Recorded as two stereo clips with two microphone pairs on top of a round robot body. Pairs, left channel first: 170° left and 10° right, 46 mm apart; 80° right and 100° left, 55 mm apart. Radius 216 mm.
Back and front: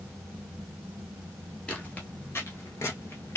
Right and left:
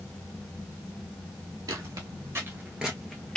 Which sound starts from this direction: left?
Footsteps, at 1.7 s.